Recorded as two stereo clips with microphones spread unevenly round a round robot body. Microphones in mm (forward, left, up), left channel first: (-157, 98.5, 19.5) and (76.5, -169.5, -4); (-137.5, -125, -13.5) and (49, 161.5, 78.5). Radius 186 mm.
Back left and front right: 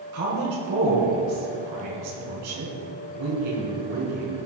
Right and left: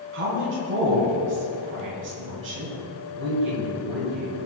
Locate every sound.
0.1 s a woman speaking: 5° right, 4 m